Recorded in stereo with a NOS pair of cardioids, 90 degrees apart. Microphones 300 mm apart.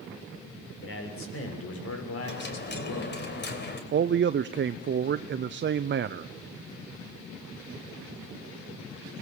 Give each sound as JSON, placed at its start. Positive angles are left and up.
{"t": 0.8, "sound": "a man speaking", "azimuth_deg": 40, "distance_m": 6.5}
{"t": 2.2, "sound": "a dropped coin", "azimuth_deg": 35, "distance_m": 3.5}
{"t": 3.9, "sound": "a man speaking", "azimuth_deg": -40, "distance_m": 0.7}